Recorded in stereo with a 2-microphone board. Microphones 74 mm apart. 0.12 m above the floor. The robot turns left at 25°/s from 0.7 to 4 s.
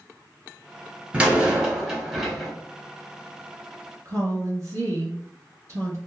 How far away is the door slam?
About 1.0 m.